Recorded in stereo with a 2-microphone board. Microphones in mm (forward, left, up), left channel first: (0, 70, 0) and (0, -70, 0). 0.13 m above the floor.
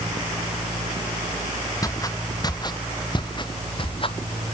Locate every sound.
1.8 s footsteps: 25° left (ahead or behind); by 4.2 s 40° left (ahead or behind)